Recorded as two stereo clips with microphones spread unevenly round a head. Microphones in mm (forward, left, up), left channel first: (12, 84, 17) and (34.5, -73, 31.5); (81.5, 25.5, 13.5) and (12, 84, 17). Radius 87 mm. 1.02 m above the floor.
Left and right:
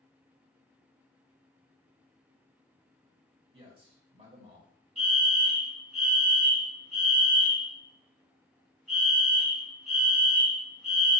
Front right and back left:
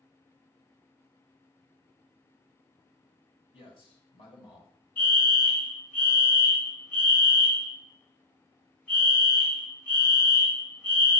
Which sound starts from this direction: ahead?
A fire alarm, at 5.0 s.